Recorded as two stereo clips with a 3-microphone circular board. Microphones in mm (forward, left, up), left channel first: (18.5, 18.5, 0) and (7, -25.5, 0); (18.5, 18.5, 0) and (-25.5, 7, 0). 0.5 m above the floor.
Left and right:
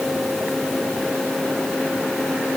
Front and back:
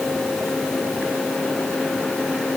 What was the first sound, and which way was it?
Only background noise.